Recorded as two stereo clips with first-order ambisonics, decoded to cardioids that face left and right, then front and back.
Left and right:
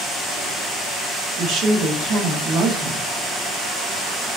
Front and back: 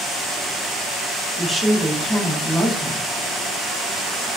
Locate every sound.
1.4 s a woman speaking: 90° right, 0.8 m